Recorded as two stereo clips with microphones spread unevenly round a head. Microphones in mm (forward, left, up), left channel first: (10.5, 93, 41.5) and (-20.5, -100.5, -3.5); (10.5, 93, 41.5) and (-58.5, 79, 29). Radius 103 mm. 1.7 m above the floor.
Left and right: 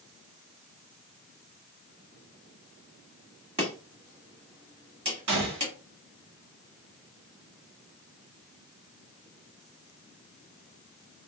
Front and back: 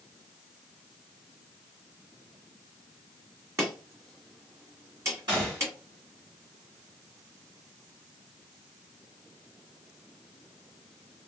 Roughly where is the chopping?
Behind.